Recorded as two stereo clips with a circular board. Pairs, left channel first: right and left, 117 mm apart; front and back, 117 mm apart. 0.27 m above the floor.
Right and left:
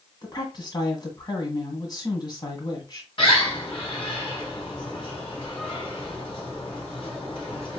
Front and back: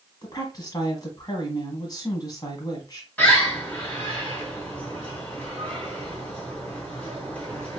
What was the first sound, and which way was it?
A woman speaking, 45° right.